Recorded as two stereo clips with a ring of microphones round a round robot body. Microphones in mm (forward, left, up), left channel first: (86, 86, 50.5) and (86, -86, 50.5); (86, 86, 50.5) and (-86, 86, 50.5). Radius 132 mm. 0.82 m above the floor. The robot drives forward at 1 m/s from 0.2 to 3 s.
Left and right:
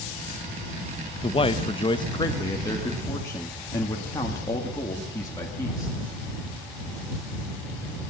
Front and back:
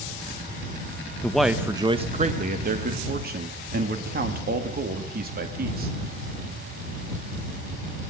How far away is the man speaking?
About 1.0 m.